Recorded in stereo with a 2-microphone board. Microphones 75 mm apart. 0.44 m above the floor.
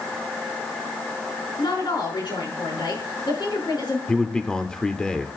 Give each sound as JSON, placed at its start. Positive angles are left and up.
{"t": 1.6, "sound": "a woman speaking", "side_deg": 75, "distance_m": 5.0}
{"t": 4.1, "sound": "a man speaking", "side_deg": 10, "distance_m": 0.9}